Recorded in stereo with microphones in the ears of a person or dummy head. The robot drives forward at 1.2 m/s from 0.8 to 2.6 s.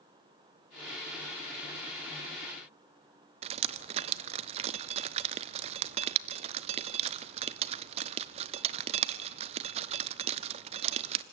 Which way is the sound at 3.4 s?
25° right (ahead or behind).